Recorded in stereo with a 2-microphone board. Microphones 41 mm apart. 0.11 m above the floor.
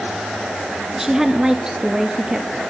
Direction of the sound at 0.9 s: 10° right (ahead or behind).